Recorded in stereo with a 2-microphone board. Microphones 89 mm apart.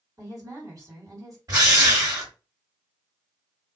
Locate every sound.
0.2 s a woman speaking: 40° right (ahead or behind), 1.7 m
1.5 s a drill: 40° right (ahead or behind), 1.7 m